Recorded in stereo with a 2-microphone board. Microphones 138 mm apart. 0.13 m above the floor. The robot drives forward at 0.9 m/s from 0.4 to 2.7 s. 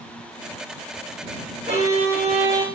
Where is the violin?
50° right (ahead or behind), 3 m; by 2.6 s 40° right (ahead or behind), 4 m.